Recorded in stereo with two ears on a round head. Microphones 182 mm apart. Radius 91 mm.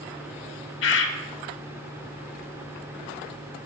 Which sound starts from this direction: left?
A bird, at 0.8 s.